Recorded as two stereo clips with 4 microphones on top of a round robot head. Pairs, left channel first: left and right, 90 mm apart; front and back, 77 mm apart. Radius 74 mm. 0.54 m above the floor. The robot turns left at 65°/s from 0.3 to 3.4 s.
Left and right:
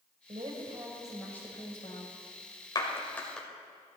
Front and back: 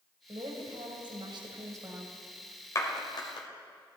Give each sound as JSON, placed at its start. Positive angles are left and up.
{"t": 0.3, "sound": "a woman speaking", "azimuth_deg": -125, "distance_m": 2.5}
{"t": 2.8, "sound": "a clap", "azimuth_deg": 50, "distance_m": 2.5}